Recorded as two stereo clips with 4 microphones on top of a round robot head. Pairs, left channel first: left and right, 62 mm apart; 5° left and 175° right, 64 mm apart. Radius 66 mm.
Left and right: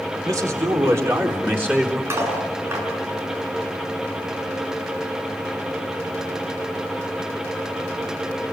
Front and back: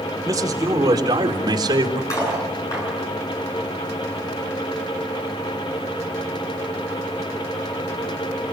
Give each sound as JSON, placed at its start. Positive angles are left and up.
{"t": 0.2, "sound": "a man speaking", "azimuth_deg": -130, "distance_m": 4.0}
{"t": 2.1, "sound": "cutlery clinking", "azimuth_deg": -45, "distance_m": 8.5}